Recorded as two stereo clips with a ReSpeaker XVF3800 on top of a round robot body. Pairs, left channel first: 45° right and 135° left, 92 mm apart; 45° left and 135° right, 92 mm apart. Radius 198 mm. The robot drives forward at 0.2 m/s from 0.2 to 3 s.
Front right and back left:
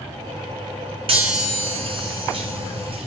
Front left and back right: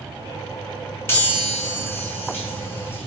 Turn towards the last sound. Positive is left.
turn(degrees=115)